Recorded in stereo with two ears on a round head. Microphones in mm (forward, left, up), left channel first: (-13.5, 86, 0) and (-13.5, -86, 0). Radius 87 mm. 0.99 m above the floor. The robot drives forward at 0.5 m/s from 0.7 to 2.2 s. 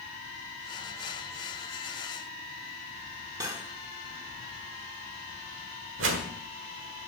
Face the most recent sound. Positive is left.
turn(degrees=-70)  # may be behind; listen again after turning